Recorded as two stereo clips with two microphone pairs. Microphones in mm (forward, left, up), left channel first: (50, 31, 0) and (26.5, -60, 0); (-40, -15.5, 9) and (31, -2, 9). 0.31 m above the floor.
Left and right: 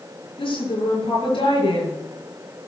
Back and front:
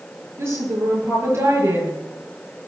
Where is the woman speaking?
65° left, 6.5 m.